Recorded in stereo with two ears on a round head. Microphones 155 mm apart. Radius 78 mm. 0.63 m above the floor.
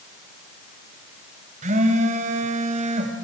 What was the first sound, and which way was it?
A phone buzzing, 45° right (ahead or behind).